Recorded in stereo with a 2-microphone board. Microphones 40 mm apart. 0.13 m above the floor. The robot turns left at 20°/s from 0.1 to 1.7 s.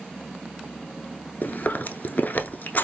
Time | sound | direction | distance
1.4 | chewing | 50° left (ahead or behind) | 0.6 m